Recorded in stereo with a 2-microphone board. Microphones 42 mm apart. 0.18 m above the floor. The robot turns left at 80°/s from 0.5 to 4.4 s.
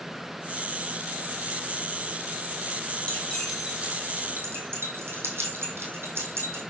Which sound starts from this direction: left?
Keys jangling, at 3.1 s.